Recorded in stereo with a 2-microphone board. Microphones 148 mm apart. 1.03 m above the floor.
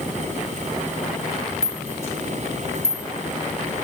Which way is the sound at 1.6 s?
15° left (ahead or behind).